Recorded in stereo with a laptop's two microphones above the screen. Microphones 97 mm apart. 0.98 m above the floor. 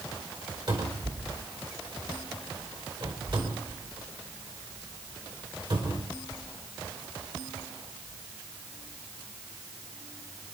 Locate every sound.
0.7 s a cupboard door: 55° right (ahead or behind), 4.5 m